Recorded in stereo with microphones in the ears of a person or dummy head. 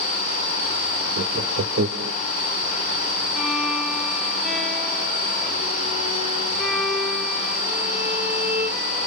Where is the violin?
Centre (ahead or behind), 2 m.